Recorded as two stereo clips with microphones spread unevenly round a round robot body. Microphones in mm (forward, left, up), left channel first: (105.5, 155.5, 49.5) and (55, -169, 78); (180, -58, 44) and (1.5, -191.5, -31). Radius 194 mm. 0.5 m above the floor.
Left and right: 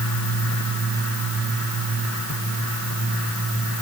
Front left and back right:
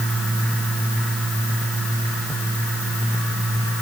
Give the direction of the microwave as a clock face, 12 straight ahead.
No microwave in this recording.